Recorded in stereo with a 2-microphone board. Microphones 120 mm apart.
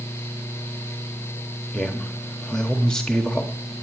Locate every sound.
1.7 s a man speaking: 5° left (ahead or behind), 0.9 m